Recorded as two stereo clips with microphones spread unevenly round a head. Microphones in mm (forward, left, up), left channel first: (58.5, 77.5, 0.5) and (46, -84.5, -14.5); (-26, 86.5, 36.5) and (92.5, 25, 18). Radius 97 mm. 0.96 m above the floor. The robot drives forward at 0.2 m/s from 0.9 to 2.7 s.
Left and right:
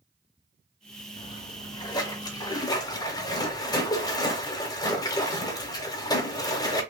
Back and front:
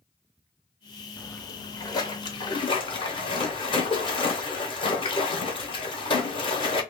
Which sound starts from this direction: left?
A splash, at 1.2 s.